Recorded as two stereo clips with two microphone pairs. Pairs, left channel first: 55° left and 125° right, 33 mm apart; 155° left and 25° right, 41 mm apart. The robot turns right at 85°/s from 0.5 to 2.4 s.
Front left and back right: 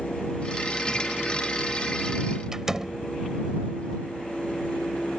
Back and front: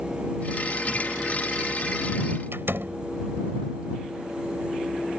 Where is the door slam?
50° right.